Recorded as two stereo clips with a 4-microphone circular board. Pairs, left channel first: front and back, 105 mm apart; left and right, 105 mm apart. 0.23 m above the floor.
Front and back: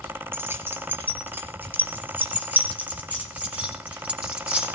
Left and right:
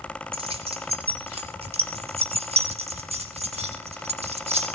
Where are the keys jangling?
115° right, 3 m; by 4.7 s 100° right, 7 m.